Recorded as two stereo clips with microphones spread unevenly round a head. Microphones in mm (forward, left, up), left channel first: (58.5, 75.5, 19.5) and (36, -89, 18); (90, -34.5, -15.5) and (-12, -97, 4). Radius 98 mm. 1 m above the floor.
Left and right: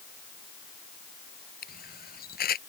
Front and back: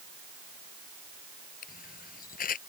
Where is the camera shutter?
50° left.